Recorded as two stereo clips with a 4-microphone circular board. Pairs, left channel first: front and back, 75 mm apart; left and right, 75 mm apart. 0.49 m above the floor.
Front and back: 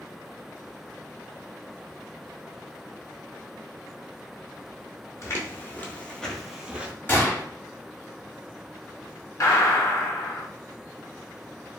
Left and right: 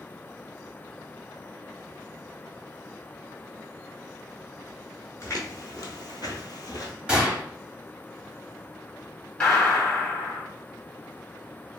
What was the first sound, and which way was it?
Footsteps, 50° left.